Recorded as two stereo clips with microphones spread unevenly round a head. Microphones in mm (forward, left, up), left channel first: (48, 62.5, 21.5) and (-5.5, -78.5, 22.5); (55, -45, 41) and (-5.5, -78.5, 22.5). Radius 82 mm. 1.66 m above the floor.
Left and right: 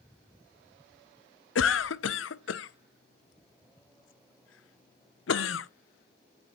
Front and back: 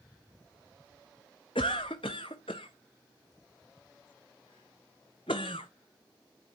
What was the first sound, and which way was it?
A cough, 80° left.